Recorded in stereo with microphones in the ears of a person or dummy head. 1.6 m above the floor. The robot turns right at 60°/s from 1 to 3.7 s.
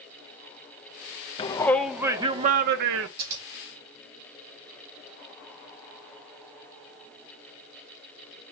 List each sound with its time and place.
1.4 s a shout: 155° left, 0.6 m; by 3.1 s 105° right, 0.6 m
3.2 s scissors: 55° right (ahead or behind), 3 m; by 3.4 s 40° right (ahead or behind), 3 m